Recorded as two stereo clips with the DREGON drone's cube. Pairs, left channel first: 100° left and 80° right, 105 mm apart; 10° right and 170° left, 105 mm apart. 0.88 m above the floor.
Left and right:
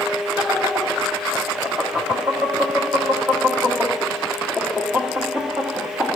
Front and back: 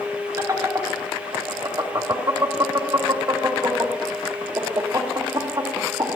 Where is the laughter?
145° right, 1.2 m.